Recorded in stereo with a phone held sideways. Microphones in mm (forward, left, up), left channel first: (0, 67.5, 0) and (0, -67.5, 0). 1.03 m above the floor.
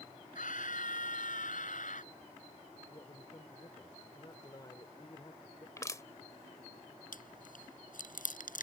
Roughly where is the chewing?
Left.